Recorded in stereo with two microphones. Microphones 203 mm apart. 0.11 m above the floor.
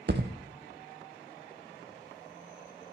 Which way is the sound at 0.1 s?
60° right (ahead or behind).